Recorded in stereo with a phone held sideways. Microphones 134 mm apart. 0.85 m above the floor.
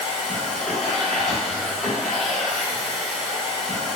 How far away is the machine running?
About 1.0 m.